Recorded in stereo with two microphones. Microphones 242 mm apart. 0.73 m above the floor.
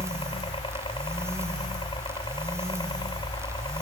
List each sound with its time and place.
0.0 s a helicopter: 20° left (ahead or behind); by 3.8 s 15° left (ahead or behind)